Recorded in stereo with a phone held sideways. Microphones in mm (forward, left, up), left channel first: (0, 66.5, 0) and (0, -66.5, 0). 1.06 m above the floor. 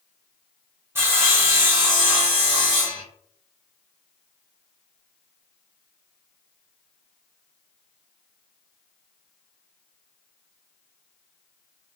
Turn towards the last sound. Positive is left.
turn(degrees=-20)  # may be behind; listen again after turning